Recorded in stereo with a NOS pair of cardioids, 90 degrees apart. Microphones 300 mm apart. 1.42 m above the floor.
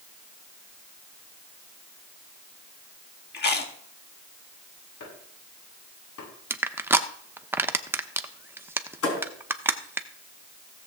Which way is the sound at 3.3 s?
35° left.